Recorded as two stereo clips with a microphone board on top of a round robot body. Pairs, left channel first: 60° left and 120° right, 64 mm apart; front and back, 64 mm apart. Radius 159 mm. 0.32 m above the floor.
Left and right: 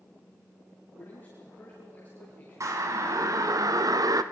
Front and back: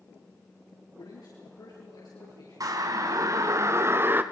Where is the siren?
155° right, 3 m; by 4.2 s 125° right, 1.6 m.